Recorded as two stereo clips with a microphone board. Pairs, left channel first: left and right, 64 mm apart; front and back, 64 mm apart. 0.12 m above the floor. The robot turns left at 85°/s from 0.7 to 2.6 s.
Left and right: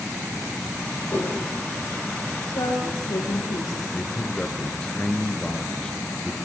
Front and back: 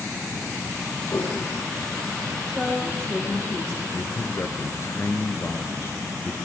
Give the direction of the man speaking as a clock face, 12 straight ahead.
11 o'clock.